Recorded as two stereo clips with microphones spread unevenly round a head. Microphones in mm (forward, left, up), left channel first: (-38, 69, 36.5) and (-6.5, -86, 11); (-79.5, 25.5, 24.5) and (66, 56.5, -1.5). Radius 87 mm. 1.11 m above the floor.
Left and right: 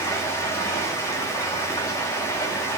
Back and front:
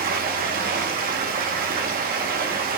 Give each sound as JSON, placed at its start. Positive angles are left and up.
{"t": 0.0, "sound": "running water", "azimuth_deg": 25, "distance_m": 0.9}